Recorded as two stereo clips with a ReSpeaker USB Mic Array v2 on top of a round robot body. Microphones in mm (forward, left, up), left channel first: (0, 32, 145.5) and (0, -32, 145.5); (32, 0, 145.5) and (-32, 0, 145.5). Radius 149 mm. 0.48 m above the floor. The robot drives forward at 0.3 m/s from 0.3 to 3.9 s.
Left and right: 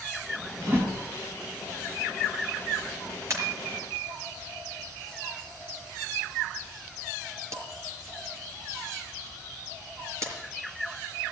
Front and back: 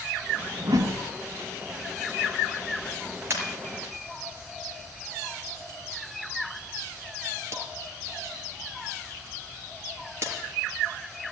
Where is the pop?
130° right, 5 m.